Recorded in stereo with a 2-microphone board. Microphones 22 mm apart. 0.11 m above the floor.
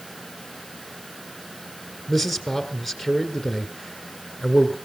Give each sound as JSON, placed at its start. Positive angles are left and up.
{"t": 2.1, "sound": "a man speaking", "side_deg": 0, "distance_m": 1.7}